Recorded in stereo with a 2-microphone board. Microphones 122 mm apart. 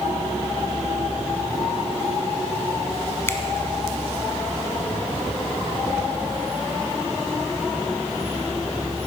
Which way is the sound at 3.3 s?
20° left (ahead or behind).